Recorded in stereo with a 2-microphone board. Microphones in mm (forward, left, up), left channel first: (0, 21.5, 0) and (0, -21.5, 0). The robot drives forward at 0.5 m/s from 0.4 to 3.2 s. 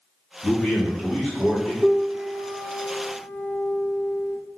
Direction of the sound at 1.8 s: Centre (ahead or behind).